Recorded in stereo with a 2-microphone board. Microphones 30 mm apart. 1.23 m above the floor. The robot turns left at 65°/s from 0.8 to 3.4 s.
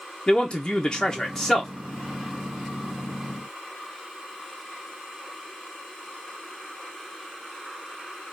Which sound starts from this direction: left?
A man speaking, at 0.3 s.